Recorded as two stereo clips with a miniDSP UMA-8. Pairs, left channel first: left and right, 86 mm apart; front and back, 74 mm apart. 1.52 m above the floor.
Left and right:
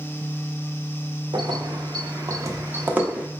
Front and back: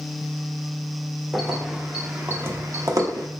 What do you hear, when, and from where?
1.3 s keys jangling: 95° right, 1.0 m; by 3.3 s 165° right, 0.9 m